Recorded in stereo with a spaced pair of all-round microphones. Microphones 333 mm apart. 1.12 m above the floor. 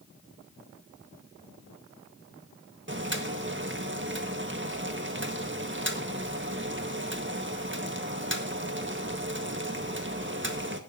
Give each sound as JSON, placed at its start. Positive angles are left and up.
{"t": 2.9, "sound": "boiling", "side_deg": -35, "distance_m": 1.7}